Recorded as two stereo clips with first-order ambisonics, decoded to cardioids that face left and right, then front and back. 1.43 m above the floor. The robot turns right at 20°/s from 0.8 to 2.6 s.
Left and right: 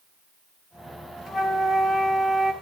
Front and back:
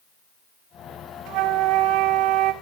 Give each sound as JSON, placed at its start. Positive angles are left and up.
{"t": 1.3, "sound": "a flute", "azimuth_deg": 160, "distance_m": 1.7}